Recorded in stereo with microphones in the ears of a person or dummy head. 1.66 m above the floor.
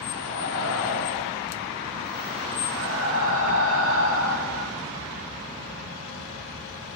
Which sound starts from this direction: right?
Breathing, at 0.1 s.